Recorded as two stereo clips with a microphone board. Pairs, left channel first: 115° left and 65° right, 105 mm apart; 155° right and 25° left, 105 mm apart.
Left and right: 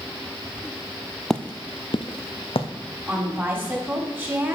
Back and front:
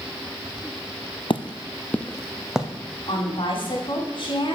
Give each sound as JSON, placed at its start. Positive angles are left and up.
{"t": 1.3, "sound": "footsteps", "azimuth_deg": -165, "distance_m": 0.6}
{"t": 3.1, "sound": "a woman speaking", "azimuth_deg": -135, "distance_m": 2.5}